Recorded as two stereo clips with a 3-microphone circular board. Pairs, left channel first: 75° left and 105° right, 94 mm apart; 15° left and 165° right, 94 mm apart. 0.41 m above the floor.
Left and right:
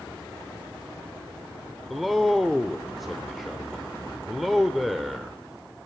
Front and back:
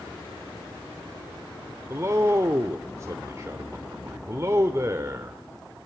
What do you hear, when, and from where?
1.9 s a man speaking: 165° left, 0.9 m